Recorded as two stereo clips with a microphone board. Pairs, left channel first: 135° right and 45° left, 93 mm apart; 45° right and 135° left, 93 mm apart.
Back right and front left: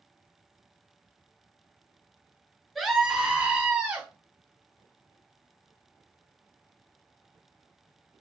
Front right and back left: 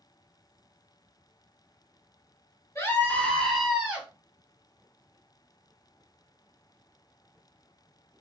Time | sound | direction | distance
2.8 | a scream | 40° right | 1.3 m